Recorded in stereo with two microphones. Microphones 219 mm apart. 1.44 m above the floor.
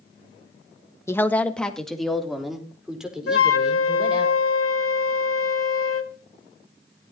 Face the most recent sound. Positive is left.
turn(degrees=75)  # may be behind; listen again after turning